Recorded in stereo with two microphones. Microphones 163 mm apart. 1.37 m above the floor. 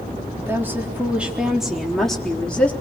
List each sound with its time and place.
0.4 s a woman speaking: 15° right (ahead or behind), 4 m; by 2.7 s 10° left (ahead or behind), 4 m